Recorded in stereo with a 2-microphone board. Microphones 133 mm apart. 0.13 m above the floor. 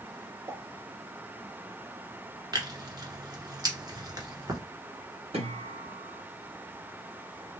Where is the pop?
25° right (ahead or behind), 2 m.